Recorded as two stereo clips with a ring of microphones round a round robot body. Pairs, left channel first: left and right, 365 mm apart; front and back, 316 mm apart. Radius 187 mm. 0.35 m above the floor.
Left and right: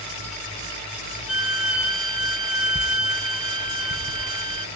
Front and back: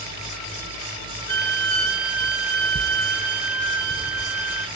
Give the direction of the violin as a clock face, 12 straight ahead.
7 o'clock.